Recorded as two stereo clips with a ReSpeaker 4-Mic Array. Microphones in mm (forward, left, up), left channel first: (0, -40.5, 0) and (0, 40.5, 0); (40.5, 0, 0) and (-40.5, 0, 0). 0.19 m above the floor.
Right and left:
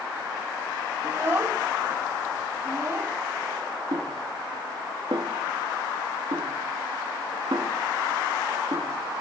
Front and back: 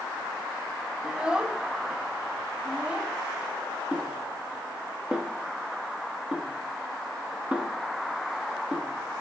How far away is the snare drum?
About 1.0 m.